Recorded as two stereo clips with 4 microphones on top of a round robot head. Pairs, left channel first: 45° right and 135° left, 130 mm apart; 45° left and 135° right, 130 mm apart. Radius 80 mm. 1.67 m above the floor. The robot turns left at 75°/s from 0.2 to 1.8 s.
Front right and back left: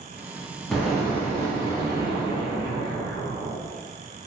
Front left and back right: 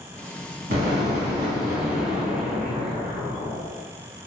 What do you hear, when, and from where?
0.7 s an explosion: 135° right, 1.3 m; by 3.6 s 140° left, 1.3 m